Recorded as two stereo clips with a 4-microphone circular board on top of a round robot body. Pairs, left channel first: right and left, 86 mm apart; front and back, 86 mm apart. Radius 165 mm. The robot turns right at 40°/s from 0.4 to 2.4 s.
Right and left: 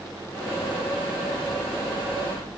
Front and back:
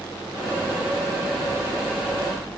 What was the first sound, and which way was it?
Only background noise.